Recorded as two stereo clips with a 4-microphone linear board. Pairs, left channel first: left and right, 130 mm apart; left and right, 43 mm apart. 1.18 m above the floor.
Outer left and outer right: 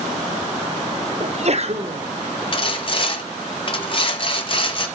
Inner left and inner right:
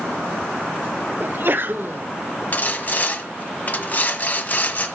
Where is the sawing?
40° left (ahead or behind), 1.4 m.